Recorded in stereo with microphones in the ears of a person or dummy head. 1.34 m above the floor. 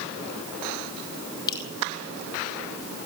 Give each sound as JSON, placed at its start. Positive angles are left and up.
{"t": 1.5, "sound": "dripping", "side_deg": 25, "distance_m": 7.5}